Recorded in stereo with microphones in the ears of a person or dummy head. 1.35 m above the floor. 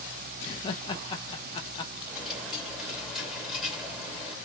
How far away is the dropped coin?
About 1.8 m.